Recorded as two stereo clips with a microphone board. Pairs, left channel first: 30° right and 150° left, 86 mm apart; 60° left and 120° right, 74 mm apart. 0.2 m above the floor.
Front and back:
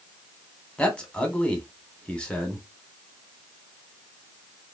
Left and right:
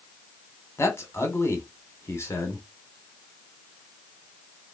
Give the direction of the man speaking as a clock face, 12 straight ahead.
11 o'clock.